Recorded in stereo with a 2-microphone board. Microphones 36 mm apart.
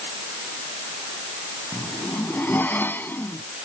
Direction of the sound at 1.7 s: 70° left (ahead or behind).